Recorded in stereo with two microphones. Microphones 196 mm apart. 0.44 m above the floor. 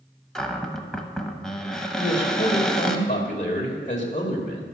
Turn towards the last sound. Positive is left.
turn(degrees=40)  # may be behind; listen again after turning